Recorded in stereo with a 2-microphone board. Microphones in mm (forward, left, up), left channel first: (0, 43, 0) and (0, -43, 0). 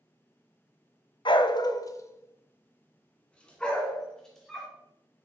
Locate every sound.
1.2 s a dog barking: 65° left (ahead or behind), 0.5 m; by 4.7 s 5° left (ahead or behind), 2.0 m